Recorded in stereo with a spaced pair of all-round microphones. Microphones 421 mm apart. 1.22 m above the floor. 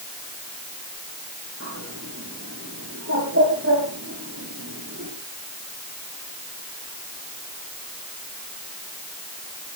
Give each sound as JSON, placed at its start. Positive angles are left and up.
{"t": 1.6, "sound": "a bird", "side_deg": -35, "distance_m": 6.5}